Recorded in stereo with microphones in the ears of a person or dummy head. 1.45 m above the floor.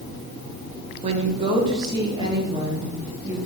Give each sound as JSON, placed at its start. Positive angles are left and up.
{"t": 1.0, "sound": "a woman speaking", "side_deg": -30, "distance_m": 1.2}